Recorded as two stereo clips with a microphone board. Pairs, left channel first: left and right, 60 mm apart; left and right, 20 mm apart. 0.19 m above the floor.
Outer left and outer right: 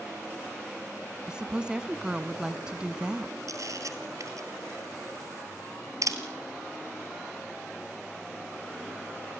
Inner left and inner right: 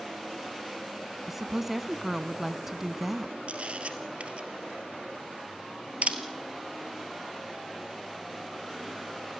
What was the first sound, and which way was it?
A woman speaking, 15° right (ahead or behind).